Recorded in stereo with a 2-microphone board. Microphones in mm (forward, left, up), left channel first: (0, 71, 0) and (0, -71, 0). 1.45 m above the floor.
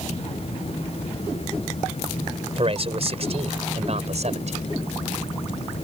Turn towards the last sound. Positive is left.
turn(degrees=-60)  # may be behind; listen again after turning